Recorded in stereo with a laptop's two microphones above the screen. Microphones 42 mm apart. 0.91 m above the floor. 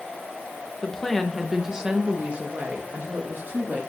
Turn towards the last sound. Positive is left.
turn(degrees=-50)  # may be behind; listen again after turning